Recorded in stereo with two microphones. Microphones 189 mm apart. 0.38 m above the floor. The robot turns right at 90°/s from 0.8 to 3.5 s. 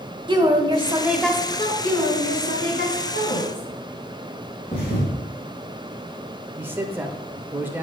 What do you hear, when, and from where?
0.3 s a woman speaking: 35° right, 1.1 m; by 1.7 s 50° left, 1.1 m
1.8 s a woman speaking: 5° left, 3 m; by 3.7 s 155° left, 3 m
4.7 s a thud: 25° left (ahead or behind), 3.5 m
6.6 s a man speaking: 10° right (ahead or behind), 0.8 m